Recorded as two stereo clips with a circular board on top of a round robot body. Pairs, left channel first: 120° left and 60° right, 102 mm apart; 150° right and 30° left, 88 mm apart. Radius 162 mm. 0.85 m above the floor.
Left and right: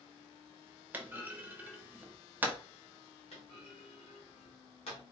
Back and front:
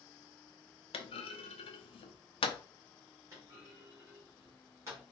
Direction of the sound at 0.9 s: 135° right.